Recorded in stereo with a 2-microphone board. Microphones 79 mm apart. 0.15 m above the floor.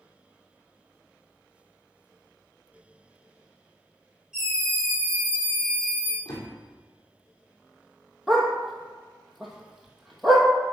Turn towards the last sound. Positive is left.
turn(degrees=0)  # may be behind; listen again after turning